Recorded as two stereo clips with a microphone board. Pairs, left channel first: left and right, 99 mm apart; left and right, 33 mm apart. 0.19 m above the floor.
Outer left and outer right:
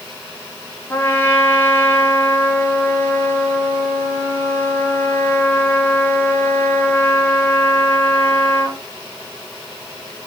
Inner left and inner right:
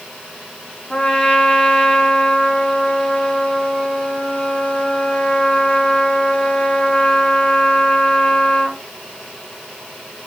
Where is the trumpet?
25° left (ahead or behind), 1.0 m.